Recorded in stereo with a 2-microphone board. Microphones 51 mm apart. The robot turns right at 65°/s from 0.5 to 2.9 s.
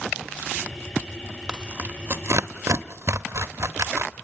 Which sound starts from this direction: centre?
Tearing paper, at 1.5 s.